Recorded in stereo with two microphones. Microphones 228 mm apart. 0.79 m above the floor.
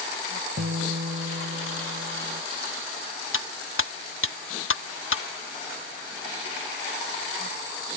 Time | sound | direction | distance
0.6 | a guitar | 70° right (ahead or behind) | ?
3.3 | cutlery clinking | 75° left (ahead or behind) | ?